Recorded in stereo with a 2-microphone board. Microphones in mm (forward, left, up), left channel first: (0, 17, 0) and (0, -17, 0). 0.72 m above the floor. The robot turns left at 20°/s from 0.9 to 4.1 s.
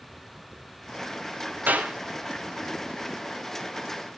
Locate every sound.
1.7 s a clap: 60° right (ahead or behind), 2.5 m; by 1.9 s 55° right (ahead or behind), 2.5 m